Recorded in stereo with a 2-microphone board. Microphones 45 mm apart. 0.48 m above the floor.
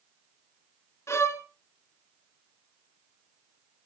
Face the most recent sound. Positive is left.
turn(degrees=80)